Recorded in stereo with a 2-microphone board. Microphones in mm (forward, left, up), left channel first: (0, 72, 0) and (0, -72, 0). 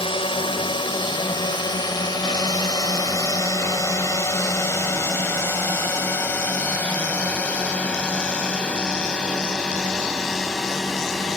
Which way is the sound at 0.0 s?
35° left (ahead or behind).